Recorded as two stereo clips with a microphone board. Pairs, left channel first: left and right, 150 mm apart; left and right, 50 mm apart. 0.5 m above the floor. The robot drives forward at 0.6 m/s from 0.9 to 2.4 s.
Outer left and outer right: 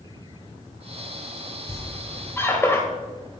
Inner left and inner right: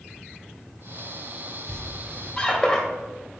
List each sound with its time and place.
1.7 s a squeak: 20° left (ahead or behind), 1.3 m; by 2.8 s 15° left (ahead or behind), 1.6 m